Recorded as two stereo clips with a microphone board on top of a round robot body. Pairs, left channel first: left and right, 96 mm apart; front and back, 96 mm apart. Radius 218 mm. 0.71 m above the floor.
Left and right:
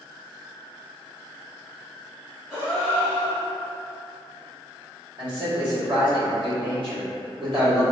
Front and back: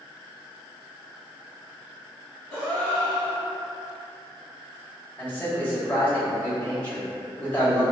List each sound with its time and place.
2.5 s a gasp: straight ahead, 0.6 m
5.2 s a man speaking: 70° right, 2.0 m